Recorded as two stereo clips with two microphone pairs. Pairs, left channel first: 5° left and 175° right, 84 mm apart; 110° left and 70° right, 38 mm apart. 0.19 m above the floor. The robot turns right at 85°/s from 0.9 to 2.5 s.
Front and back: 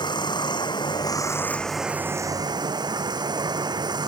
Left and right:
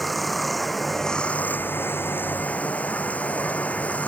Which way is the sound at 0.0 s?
20° left.